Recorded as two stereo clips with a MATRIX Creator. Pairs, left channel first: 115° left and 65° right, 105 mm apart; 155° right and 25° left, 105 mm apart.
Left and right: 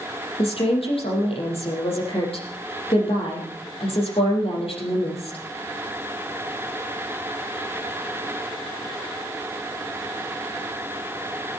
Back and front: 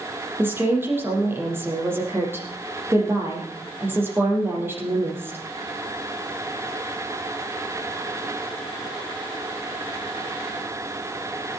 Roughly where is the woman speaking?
Left.